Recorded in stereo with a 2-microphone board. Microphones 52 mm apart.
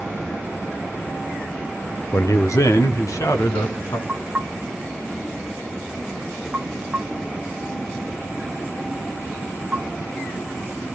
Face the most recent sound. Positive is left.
turn(degrees=-20)  # may be behind; listen again after turning